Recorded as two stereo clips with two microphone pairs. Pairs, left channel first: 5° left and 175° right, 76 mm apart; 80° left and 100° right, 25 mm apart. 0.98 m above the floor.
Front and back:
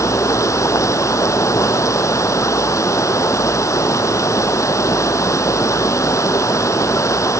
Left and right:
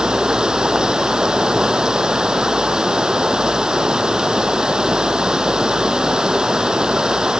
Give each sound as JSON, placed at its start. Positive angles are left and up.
{"t": 0.0, "sound": "running water", "azimuth_deg": -45}